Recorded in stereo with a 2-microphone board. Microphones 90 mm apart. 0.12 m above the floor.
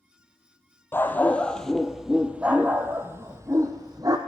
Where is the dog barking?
20° left (ahead or behind), 1.2 m; by 4.2 s 45° right (ahead or behind), 1.7 m.